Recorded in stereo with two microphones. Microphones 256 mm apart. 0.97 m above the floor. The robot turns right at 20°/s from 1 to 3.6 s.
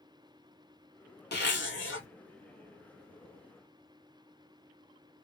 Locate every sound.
1.3 s a zipper: 40° left (ahead or behind), 1.1 m; by 2.1 s 55° left (ahead or behind), 1.1 m